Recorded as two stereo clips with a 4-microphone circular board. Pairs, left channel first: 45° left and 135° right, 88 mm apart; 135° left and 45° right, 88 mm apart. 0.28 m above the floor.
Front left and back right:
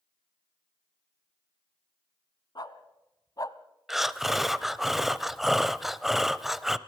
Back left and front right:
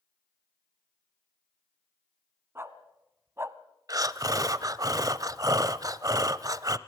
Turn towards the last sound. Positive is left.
turn(degrees=-50)